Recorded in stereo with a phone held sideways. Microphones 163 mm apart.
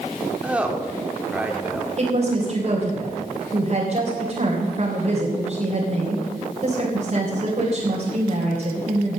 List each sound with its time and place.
0.4 s a woman speaking: 10° right (ahead or behind), 2.5 m
2.0 s a woman speaking: 40° right (ahead or behind), 3.5 m